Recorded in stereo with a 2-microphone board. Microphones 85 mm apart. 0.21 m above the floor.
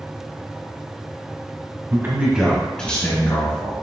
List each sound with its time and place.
1.9 s a man speaking: 30° right (ahead or behind), 1.3 m; by 3.7 s 45° left (ahead or behind), 1.7 m